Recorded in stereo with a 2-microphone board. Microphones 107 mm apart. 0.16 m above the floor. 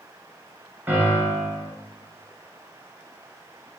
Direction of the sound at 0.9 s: 15° right (ahead or behind).